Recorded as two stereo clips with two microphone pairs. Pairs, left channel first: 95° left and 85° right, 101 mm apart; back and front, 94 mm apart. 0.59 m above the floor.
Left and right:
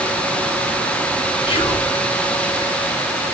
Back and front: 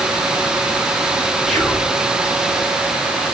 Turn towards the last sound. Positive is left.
turn(degrees=90)